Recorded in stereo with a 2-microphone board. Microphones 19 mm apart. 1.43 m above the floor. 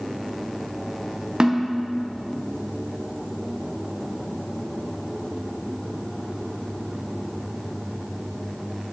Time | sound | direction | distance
1.4 | a snare drum | 50° right (ahead or behind) | 0.6 m